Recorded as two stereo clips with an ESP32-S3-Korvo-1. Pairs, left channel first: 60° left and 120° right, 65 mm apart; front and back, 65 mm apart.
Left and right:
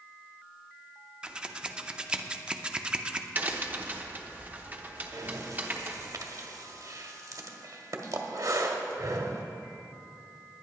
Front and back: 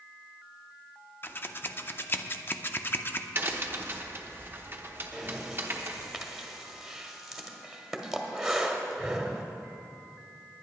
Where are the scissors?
45° right, 0.5 m.